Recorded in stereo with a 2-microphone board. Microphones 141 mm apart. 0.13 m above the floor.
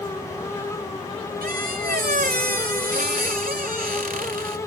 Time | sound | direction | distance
1.4 | a squeak | 80° right | 0.7 m